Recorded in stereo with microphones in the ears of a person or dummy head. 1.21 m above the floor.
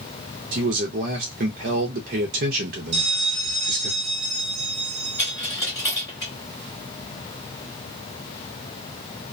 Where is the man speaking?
45° right (ahead or behind), 0.5 m.